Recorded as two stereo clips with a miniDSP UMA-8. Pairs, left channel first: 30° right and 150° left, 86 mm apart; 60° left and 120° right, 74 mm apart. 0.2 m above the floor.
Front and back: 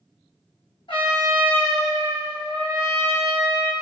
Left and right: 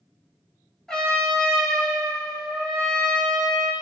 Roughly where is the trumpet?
Ahead.